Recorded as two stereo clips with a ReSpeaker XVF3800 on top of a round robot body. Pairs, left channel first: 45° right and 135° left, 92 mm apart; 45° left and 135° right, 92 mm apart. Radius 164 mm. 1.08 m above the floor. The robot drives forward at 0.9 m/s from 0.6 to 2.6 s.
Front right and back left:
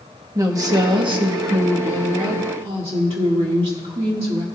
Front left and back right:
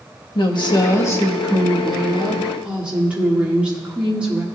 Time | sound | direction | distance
0.3 | a woman speaking | 85° left | 1.1 m